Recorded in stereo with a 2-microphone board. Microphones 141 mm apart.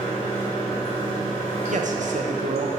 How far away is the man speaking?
About 0.7 m.